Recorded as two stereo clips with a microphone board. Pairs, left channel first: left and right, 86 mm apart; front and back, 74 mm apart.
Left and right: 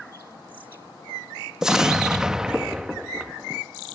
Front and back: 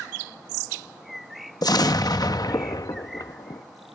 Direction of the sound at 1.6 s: 10° right.